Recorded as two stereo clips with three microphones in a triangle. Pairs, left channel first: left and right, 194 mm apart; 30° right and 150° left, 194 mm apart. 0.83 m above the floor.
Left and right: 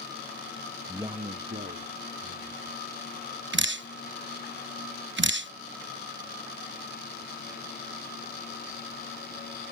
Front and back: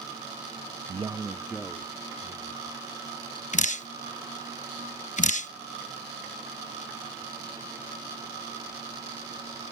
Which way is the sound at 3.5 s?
80° right.